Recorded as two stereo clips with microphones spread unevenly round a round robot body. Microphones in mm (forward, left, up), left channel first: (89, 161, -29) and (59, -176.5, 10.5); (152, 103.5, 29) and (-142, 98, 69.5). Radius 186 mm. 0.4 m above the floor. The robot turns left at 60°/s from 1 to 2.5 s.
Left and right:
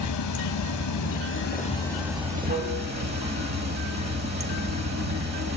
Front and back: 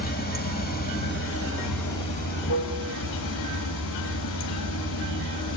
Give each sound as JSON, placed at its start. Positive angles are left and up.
{"t": 0.0, "sound": "running water", "azimuth_deg": 55, "distance_m": 2.0}